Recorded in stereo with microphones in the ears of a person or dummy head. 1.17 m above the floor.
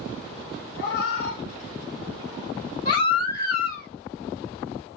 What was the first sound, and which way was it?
A cat meowing, 60° left (ahead or behind).